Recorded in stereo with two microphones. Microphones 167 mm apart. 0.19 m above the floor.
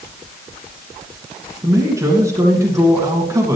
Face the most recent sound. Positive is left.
turn(degrees=-20)  # may be behind; listen again after turning